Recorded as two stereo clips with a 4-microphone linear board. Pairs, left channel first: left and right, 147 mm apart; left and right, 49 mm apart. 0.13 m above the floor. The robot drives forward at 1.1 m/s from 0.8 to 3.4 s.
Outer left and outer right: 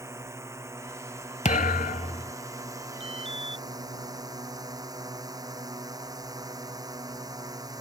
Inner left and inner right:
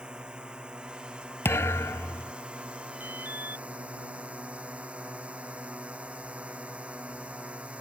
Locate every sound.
0.0 s a drone: 20° right (ahead or behind); by 7.8 s 25° right (ahead or behind)
1.4 s a thud: 55° left (ahead or behind); by 2.3 s 35° left (ahead or behind)
3.0 s an alarm: 40° right (ahead or behind)